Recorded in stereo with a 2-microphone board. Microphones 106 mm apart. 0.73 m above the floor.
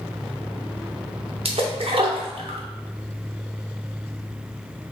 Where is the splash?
65° right (ahead or behind), 0.5 m.